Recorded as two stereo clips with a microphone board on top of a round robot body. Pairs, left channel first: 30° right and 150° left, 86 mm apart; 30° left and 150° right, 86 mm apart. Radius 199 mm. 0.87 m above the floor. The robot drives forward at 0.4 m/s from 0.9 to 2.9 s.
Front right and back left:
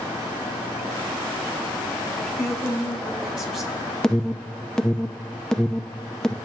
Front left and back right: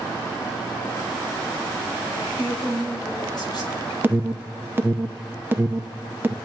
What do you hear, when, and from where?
2.1 s a woman speaking: 65° left, 4 m; by 3.8 s 70° left, 4 m
4.0 s an alarm: 110° right, 0.8 m